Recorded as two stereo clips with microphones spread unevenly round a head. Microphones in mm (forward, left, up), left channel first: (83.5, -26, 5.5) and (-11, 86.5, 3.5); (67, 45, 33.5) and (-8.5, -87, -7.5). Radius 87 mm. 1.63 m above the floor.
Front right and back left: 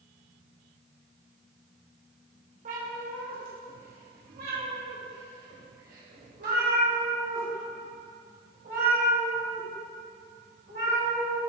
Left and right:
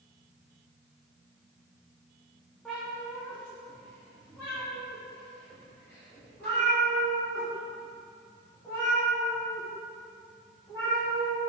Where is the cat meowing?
130° left, 1.4 m; by 11.4 s 135° left, 6 m.